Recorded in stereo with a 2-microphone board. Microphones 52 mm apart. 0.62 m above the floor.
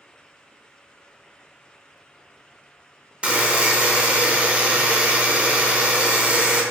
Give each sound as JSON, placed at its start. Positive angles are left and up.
{"t": 3.2, "sound": "a buzzer", "side_deg": -25, "distance_m": 0.6}